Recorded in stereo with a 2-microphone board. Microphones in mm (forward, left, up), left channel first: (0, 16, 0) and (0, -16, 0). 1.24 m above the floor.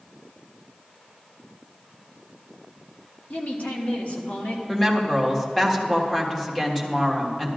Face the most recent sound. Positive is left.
turn(degrees=10)  # may be behind; listen again after turning